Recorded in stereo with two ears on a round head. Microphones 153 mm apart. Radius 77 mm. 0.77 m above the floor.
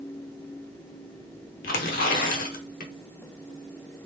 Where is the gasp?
I don't hear a gasp.